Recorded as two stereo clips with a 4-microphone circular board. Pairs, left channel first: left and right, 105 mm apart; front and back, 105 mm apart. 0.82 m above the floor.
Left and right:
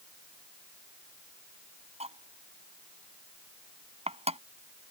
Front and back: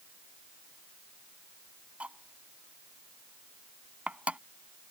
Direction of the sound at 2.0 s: 100° right.